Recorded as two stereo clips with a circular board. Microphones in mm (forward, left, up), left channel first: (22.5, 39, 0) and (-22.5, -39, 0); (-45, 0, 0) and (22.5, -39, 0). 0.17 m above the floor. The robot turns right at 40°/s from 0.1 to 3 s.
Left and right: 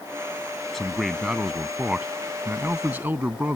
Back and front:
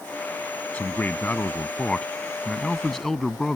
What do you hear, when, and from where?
0.7 s a man speaking: 140° left; by 3.6 s 130° right